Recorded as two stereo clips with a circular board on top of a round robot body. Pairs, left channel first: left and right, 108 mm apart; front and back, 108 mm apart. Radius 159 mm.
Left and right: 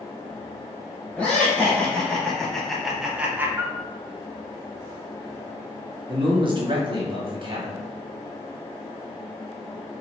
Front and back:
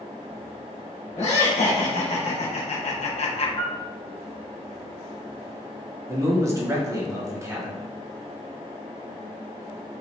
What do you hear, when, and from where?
1.2 s laughter: 10° left, 1.8 m; by 3.5 s 20° right, 0.6 m
3.6 s a piano: 25° right, 0.9 m
6.1 s a man speaking: 125° right, 1.2 m